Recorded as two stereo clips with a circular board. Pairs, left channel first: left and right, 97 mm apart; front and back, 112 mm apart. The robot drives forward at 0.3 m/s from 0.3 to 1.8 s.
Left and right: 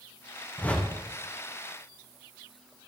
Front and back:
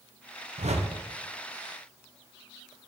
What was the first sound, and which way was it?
A whoosh, 165° left.